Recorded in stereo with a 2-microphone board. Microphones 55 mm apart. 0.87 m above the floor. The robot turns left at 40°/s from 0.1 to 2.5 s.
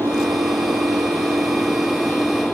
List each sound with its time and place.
0.0 s an engine running: 70° right; by 2.5 s 170° right